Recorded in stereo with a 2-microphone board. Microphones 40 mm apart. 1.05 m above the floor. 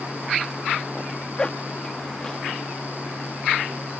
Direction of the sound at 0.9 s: 25° left (ahead or behind).